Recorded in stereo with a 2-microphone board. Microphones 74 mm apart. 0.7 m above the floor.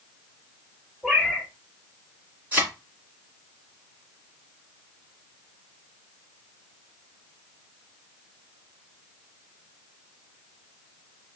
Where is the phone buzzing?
No phone buzzing in this recording.